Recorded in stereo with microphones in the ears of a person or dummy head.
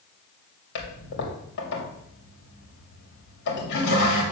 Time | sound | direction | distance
0.8 | a toilet flushing | 55° left (ahead or behind) | 2.5 m